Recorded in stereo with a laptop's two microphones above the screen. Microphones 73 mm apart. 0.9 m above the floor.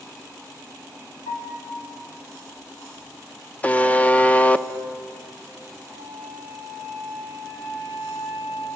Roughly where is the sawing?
No sawing in this recording.